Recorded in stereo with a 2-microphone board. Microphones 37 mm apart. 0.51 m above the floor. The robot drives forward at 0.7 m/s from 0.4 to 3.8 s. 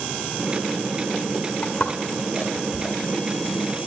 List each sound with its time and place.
1.6 s footsteps: 35° left (ahead or behind), 2.5 m; by 3.0 s 15° left (ahead or behind), 3 m